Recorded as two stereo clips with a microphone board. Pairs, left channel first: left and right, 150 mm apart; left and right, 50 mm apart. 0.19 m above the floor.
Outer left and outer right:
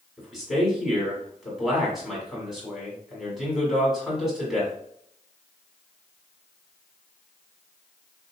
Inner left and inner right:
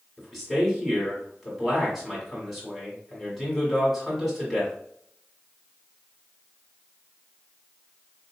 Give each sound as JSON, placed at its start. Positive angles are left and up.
{"t": 0.2, "sound": "a man speaking", "side_deg": 0, "distance_m": 1.7}